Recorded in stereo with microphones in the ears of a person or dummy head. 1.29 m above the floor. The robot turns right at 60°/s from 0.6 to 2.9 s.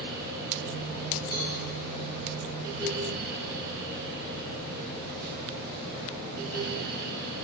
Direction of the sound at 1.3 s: 5° right (ahead or behind).